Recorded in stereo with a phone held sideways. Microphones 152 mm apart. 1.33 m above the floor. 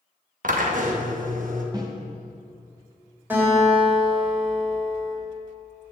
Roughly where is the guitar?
Centre.